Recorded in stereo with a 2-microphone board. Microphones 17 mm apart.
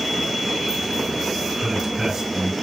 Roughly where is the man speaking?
Right.